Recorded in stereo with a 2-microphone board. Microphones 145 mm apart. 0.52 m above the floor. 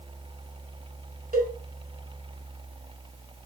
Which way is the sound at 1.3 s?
75° right (ahead or behind).